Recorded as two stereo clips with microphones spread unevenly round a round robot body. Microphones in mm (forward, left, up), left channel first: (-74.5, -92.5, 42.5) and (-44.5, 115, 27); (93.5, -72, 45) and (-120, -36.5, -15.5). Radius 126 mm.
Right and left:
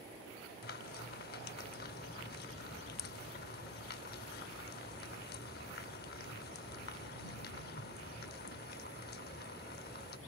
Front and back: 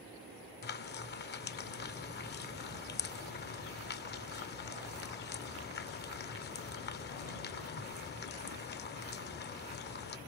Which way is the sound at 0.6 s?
45° right.